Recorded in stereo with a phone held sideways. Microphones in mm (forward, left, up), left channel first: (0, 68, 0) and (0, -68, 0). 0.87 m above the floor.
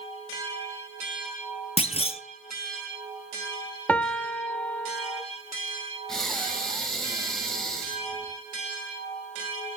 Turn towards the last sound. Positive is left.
turn(degrees=5)  # may be behind; listen again after turning